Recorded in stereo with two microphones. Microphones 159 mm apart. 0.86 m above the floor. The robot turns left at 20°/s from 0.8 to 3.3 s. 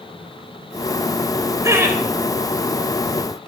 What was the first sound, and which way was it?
Laughter, 20° right (ahead or behind).